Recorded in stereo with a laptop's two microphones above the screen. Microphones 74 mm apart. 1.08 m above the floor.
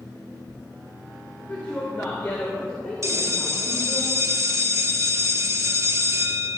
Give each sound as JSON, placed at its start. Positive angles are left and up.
{"t": 1.5, "sound": "a woman speaking", "side_deg": 20, "distance_m": 4.0}
{"t": 3.0, "sound": "a bell", "side_deg": -40, "distance_m": 0.8}